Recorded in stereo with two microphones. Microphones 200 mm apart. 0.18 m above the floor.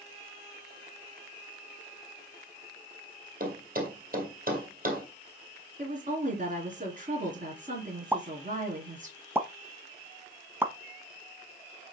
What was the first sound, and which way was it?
A thud, 45° right (ahead or behind).